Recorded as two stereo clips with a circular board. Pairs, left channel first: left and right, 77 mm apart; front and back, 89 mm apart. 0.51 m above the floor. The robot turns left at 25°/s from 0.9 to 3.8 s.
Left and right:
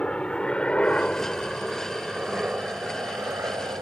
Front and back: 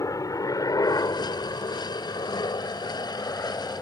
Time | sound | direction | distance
0.0 | a helicopter | 15° left | ?